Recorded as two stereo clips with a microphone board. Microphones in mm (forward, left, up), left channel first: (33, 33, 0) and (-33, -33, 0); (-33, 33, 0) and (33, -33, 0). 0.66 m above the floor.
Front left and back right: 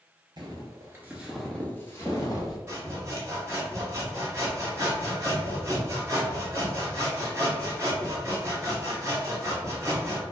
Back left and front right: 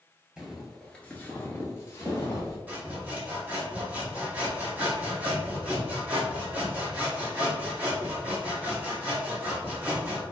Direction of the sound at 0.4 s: 130° right.